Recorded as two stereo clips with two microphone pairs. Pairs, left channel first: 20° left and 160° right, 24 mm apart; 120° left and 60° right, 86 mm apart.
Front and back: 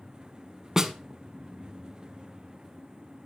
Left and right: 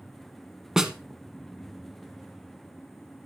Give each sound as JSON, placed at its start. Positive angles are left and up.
{"t": 0.8, "sound": "a snare drum", "azimuth_deg": -130, "distance_m": 0.8}